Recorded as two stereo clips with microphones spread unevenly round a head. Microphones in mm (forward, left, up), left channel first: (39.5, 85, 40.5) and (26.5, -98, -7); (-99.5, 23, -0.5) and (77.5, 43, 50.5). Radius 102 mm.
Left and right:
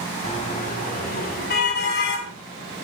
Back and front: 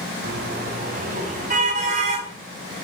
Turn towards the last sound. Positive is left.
turn(degrees=60)